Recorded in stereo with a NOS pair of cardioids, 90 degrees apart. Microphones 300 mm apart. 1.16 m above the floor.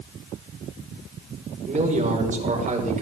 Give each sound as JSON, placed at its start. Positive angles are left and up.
{"t": 1.7, "sound": "a man speaking", "azimuth_deg": -25, "distance_m": 5.0}